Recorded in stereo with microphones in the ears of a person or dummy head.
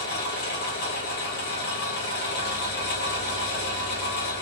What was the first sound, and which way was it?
An engine running, 50° left (ahead or behind).